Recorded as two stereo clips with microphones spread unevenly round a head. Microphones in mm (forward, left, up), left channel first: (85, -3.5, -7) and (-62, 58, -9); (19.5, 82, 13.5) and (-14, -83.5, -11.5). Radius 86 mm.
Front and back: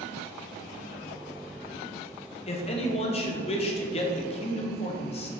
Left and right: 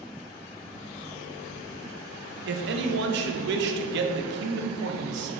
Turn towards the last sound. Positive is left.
turn(degrees=-75)